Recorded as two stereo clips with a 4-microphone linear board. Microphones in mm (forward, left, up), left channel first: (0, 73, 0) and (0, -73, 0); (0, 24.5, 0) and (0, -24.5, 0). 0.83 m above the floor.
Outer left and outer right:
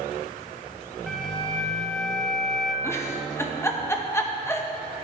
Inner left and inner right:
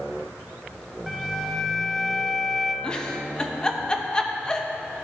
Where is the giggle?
15° left (ahead or behind), 0.7 m.